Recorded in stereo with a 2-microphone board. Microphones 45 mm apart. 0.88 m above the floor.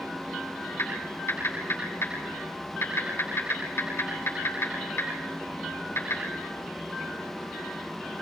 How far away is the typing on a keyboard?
About 9 m.